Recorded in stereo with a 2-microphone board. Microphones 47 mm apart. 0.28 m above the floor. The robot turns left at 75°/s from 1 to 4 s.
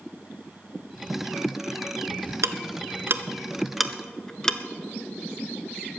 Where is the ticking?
75° right (ahead or behind), 0.8 m; by 4.6 s 10° left (ahead or behind), 0.8 m.